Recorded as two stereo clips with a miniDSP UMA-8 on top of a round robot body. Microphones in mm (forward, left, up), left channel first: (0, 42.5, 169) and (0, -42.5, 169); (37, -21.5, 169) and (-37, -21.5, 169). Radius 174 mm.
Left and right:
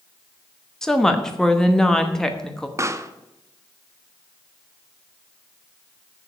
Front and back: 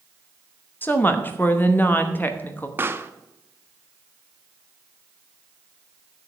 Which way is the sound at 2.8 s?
130° right.